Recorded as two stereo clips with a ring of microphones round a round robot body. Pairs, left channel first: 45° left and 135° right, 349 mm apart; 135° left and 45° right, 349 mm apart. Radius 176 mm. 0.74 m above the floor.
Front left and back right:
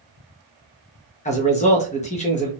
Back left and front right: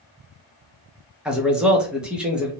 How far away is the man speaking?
About 0.7 m.